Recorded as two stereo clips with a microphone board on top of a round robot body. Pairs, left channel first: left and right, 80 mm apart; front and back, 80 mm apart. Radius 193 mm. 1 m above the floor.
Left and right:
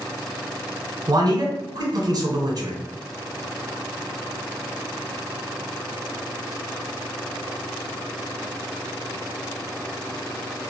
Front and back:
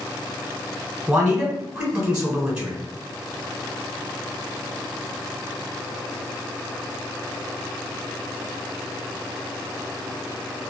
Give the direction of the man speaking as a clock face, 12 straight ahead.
3 o'clock.